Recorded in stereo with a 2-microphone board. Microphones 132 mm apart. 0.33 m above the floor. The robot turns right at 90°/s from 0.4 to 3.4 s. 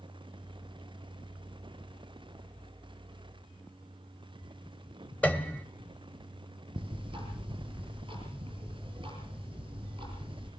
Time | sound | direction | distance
5.2 | a piano | 10° left (ahead or behind) | 1.8 m
6.8 | ticking | 40° right (ahead or behind) | 7 m